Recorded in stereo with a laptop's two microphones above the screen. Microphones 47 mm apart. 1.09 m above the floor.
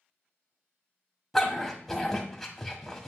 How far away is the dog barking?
About 1.4 m.